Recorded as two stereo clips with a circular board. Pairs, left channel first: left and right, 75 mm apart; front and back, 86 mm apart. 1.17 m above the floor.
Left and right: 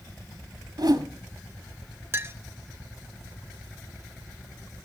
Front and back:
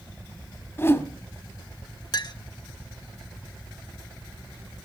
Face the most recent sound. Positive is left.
turn(degrees=-35)